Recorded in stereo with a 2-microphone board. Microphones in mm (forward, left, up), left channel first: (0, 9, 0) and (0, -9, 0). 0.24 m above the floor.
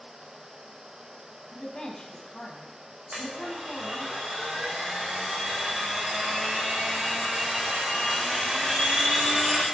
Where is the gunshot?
No gunshot in this recording.